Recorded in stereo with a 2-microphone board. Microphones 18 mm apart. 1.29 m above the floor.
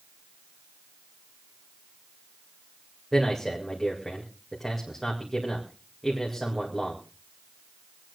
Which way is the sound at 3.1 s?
5° left (ahead or behind).